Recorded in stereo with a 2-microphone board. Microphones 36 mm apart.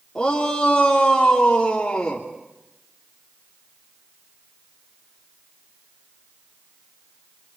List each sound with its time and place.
0.1 s a shout: 15° left (ahead or behind), 3 m